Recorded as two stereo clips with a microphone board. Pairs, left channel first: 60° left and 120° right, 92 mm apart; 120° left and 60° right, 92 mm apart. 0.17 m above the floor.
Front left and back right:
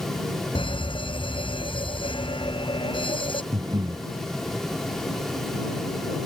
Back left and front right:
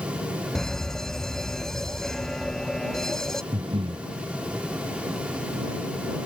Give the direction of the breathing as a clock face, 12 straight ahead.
3 o'clock.